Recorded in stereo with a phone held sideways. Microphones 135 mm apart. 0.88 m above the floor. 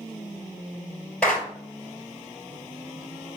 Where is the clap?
15° left (ahead or behind), 4 m.